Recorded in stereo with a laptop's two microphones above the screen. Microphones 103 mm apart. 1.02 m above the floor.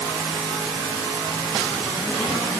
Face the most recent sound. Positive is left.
No sound to turn to.